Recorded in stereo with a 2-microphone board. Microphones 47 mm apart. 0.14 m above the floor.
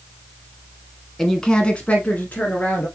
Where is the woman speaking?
5° left (ahead or behind), 1.1 m; by 2.9 s 35° left (ahead or behind), 1.9 m.